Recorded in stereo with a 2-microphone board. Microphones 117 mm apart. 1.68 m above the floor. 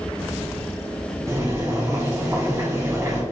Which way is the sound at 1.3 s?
25° right (ahead or behind).